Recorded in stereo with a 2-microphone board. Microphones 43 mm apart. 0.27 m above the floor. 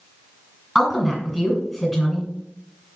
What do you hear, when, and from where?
0.8 s a woman speaking: centre (ahead or behind), 1.9 m